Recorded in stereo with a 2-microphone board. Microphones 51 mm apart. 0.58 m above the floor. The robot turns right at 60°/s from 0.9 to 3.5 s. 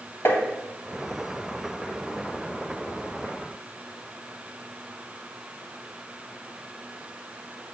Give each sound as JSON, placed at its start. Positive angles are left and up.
{"t": 0.2, "sound": "tapping", "side_deg": 45, "distance_m": 2.0}